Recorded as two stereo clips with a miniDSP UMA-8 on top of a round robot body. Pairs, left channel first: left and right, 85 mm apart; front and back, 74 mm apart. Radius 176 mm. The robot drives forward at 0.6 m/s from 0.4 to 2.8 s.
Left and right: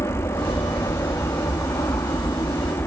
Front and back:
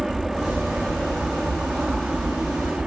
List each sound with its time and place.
0.0 s an aircraft: 95° left; by 2.9 s 105° left